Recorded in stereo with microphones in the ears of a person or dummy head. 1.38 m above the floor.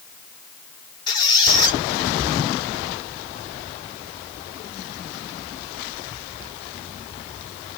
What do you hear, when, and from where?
1.1 s a squeak: 25° left (ahead or behind), 1.6 m